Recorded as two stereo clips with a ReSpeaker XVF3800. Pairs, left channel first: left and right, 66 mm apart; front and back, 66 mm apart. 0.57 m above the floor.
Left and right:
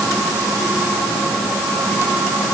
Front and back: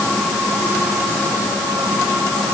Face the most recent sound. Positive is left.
No sound to turn to.